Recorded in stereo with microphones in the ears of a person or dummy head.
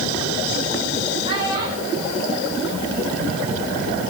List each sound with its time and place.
1.2 s a child speaking: 25° right (ahead or behind), 3.5 m; by 3.4 s 5° left (ahead or behind), 3 m